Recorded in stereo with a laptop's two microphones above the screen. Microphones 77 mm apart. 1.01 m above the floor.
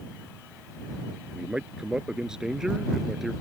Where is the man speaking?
10° right (ahead or behind); by 3.3 s centre (ahead or behind).